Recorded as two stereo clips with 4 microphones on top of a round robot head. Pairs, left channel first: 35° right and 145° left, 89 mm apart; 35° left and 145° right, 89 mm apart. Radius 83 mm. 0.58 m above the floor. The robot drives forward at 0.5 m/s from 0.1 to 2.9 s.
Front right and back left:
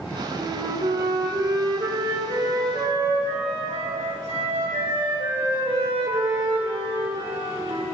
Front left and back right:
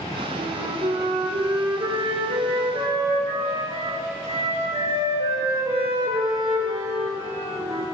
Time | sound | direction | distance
0.4 | a flute | 170° right | 1.9 m